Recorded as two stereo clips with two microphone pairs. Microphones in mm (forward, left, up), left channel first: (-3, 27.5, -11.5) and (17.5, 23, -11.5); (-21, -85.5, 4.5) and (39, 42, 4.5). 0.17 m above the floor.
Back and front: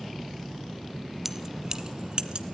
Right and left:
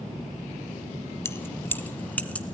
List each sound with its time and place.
1.2 s keys jangling: 75° right, 0.9 m; by 2.5 s 35° right, 1.5 m